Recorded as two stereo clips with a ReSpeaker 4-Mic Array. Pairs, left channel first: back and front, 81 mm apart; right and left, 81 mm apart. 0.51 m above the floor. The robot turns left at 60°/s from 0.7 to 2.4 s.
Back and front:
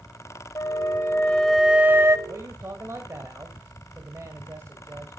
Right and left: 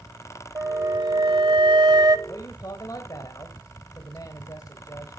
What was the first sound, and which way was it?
A flute, 140° left.